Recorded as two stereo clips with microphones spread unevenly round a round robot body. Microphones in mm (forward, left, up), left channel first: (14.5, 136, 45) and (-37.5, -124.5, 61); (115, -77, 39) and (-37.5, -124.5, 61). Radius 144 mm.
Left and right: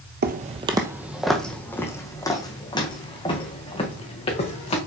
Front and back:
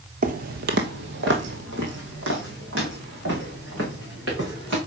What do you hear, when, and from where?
0.2 s footsteps: 150° right, 0.8 m; by 4.8 s 150° left, 4 m